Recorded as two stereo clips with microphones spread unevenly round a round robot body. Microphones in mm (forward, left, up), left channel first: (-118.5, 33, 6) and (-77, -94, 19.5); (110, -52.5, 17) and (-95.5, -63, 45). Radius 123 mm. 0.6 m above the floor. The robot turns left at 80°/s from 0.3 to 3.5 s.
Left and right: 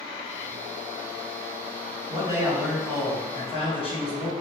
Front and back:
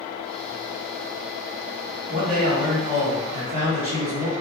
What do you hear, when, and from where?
2.1 s a man speaking: 125° right, 1.8 m; by 4.3 s 125° left, 1.8 m